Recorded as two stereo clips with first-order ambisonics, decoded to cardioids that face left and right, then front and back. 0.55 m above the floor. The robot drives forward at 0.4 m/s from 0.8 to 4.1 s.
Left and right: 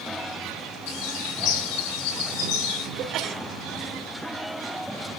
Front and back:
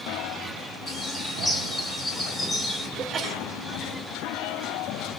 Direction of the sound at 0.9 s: 75° left.